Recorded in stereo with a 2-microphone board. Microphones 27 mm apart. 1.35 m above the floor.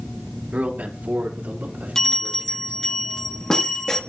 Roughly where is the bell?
Left.